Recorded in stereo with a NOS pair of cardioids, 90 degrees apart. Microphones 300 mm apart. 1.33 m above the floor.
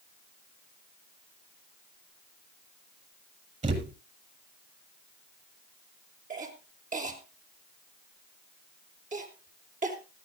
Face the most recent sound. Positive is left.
turn(degrees=-25)